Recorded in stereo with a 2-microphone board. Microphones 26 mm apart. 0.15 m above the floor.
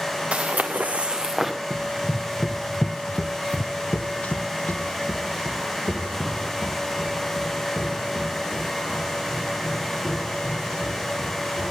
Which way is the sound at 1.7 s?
30° right (ahead or behind).